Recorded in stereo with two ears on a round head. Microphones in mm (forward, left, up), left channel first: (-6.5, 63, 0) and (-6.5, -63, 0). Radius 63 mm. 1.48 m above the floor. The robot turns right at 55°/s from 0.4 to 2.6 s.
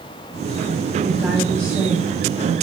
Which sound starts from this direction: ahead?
A woman speaking, at 1.0 s.